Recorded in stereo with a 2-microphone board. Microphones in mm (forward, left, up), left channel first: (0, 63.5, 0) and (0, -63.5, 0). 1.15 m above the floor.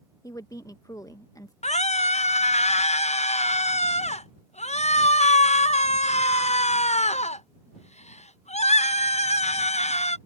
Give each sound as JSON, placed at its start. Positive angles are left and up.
{"t": 0.2, "sound": "a woman speaking", "side_deg": 30}
{"t": 1.6, "sound": "a scream", "side_deg": 70}